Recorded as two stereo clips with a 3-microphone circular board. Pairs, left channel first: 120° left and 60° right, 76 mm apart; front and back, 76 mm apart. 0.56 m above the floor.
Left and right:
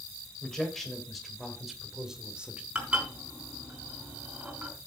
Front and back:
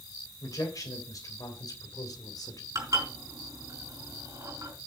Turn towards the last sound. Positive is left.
turn(degrees=-135)